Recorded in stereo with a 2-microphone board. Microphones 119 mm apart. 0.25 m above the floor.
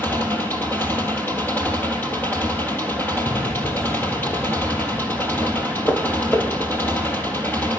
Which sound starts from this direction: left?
Footsteps, at 3.3 s.